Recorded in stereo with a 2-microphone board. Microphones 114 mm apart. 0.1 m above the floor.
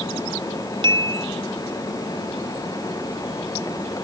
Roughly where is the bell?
Right.